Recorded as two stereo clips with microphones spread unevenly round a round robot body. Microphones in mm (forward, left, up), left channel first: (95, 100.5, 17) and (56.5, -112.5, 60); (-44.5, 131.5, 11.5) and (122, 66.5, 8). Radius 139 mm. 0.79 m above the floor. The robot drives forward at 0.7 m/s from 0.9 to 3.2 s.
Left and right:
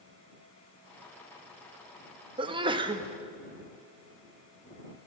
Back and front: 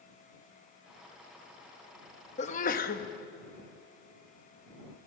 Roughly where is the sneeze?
Behind.